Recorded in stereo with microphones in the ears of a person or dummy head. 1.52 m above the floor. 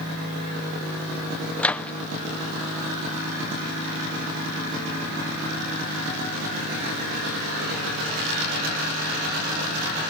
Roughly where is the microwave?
Centre.